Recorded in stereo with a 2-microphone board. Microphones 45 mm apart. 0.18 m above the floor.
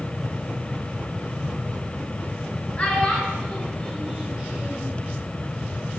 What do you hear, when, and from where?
2.8 s a child speaking: 30° left (ahead or behind), 1.6 m; by 4.9 s 35° right (ahead or behind), 1.6 m